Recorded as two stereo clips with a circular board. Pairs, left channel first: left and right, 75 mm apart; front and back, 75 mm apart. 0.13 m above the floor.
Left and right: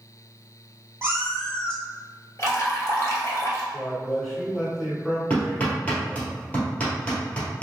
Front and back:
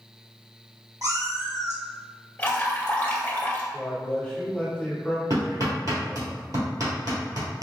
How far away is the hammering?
About 1.8 m.